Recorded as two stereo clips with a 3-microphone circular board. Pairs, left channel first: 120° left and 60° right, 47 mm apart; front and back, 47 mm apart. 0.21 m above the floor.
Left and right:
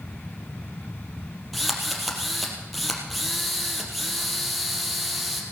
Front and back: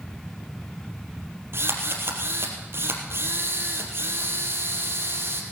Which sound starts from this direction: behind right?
A drill, at 1.5 s.